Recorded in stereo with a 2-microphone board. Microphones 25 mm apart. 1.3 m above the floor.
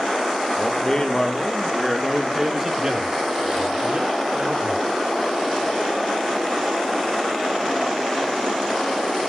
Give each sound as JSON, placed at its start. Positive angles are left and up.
{"t": 0.6, "sound": "a man speaking", "side_deg": 30, "distance_m": 1.9}